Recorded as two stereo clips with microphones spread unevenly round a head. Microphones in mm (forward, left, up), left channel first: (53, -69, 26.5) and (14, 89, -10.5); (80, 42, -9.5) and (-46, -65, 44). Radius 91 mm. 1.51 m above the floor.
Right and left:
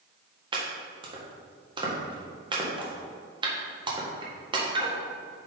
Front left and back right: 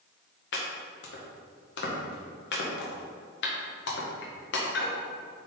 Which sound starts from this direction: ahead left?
Chopping, at 0.5 s.